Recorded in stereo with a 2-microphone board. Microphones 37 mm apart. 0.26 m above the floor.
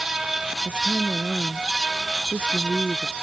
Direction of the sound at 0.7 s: 30° right (ahead or behind).